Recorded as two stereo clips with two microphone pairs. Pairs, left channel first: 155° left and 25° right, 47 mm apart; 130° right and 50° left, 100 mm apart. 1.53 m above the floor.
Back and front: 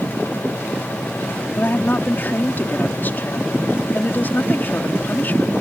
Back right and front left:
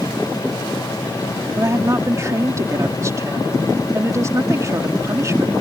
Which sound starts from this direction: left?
A woman speaking, at 1.6 s.